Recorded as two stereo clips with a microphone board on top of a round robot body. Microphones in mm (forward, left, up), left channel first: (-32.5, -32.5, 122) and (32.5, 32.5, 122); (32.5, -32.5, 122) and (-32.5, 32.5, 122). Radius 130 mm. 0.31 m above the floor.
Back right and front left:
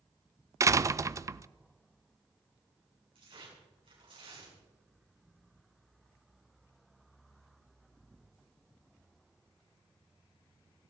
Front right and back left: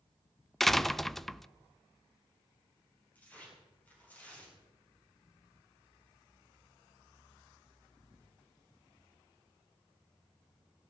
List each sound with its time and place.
0.6 s a door slam: 40° left, 0.6 m
3.1 s tearing paper: 25° left, 6 m